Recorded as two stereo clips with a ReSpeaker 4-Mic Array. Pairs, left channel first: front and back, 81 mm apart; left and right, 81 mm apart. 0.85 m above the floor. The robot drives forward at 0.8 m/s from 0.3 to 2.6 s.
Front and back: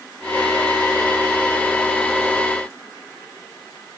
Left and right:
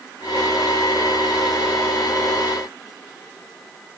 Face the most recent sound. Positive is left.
No sound to turn to.